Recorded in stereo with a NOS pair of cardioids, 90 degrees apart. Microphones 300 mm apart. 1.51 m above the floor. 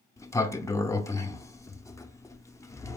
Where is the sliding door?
10° left, 0.6 m.